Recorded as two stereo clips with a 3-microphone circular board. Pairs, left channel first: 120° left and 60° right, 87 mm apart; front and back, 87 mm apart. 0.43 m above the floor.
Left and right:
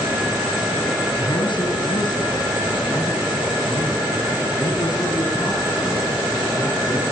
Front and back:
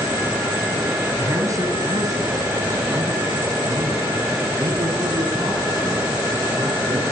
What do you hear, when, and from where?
1.2 s a man speaking: 130° left, 3.5 m; by 7.0 s 165° left, 8 m